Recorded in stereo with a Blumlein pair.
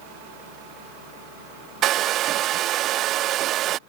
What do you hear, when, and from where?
1.8 s a hair dryer: 35° right